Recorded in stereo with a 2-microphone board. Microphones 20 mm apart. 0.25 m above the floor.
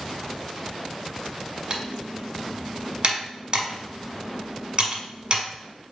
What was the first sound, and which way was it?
Typing on a keyboard, 45° right (ahead or behind).